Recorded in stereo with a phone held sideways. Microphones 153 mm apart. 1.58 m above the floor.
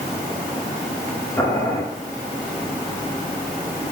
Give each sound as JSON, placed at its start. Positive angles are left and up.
{"t": 1.4, "sound": "boiling", "side_deg": 15, "distance_m": 5.5}